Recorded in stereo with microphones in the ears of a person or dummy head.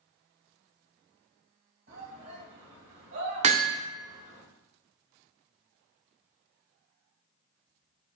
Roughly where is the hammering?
Right.